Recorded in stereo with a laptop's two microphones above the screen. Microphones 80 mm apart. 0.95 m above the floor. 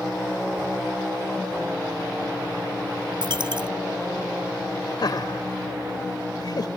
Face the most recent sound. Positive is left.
turn(degrees=60)  # may be behind; listen again after turning